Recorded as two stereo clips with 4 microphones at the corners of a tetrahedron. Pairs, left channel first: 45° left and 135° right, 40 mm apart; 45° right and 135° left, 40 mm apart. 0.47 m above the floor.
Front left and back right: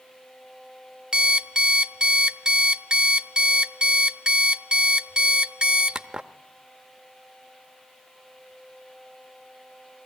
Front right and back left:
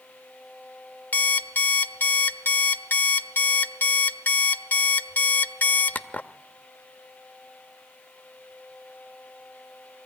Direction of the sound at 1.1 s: 70° right.